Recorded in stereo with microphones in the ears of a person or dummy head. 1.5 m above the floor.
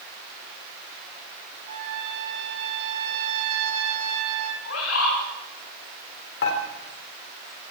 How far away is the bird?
About 9.5 m.